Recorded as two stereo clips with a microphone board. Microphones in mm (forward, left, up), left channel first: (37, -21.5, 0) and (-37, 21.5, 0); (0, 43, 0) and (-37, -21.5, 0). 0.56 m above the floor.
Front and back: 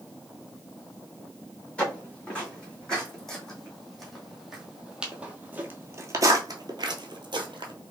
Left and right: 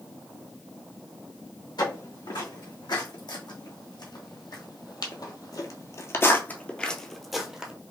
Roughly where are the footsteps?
Ahead left.